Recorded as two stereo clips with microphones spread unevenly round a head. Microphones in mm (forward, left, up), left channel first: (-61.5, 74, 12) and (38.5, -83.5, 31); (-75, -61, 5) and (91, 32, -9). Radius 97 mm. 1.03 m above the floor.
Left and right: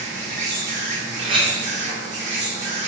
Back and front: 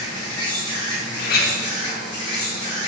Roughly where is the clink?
Behind right.